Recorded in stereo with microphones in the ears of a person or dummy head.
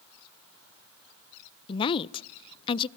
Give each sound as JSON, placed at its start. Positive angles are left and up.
{"t": 1.7, "sound": "a woman speaking", "side_deg": 30, "distance_m": 0.6}